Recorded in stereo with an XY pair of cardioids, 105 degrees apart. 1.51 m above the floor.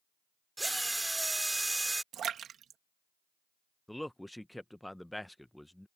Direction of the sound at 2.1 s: 60° right.